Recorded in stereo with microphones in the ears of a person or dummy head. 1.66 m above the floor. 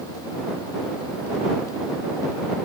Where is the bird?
No bird in this recording.